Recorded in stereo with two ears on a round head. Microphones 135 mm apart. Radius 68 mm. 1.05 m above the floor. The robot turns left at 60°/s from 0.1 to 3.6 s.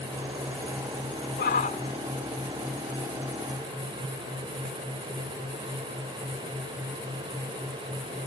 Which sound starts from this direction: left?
A shout, at 1.4 s.